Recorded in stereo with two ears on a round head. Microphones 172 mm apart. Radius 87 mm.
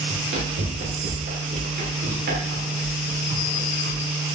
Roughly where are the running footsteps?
Right.